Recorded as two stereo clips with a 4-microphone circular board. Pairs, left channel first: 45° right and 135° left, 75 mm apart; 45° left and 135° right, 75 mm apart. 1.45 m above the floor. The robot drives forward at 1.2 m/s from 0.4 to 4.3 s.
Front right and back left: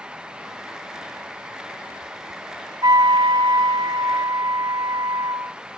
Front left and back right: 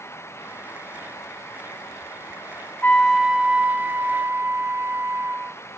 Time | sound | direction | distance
2.8 | a flute | 110° left | 0.7 m